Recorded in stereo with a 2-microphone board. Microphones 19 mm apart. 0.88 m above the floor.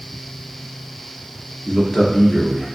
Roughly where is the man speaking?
Left.